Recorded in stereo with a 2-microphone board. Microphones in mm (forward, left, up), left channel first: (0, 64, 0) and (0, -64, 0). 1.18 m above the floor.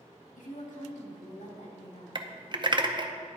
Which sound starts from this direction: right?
Typing on a keyboard, at 2.1 s.